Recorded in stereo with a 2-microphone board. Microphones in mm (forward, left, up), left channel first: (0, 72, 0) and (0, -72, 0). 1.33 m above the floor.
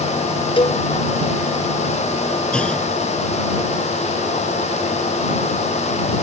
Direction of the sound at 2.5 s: 5° left (ahead or behind).